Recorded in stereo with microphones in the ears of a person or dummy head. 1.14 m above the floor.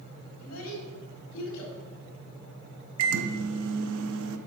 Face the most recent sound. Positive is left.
turn(degrees=-75)  # may be behind; listen again after turning